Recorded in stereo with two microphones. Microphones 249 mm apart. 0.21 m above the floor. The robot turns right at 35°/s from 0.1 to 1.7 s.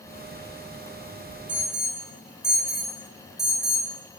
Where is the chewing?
I don't hear chewing.